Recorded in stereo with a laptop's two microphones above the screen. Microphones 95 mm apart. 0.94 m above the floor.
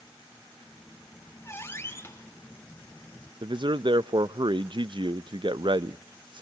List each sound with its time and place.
0.6 s a squeak: 25° left (ahead or behind), 3 m
3.4 s a man speaking: 55° right (ahead or behind), 0.5 m